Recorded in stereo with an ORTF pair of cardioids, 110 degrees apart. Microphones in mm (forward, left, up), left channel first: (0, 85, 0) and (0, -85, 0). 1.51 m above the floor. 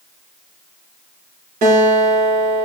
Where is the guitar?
65° right, 5.5 m.